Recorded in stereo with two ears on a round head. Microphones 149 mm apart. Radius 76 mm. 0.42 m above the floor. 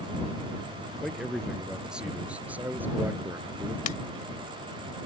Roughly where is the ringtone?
Left.